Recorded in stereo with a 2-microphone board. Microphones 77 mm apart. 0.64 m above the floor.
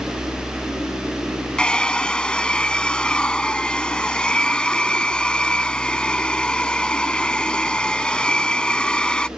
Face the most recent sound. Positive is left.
turn(degrees=15)  # may be behind; listen again after turning